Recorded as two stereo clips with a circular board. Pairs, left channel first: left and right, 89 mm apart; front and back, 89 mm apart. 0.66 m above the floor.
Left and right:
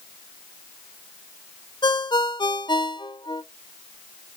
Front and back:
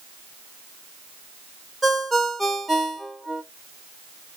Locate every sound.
1.8 s a ringtone: 90° left, 0.7 m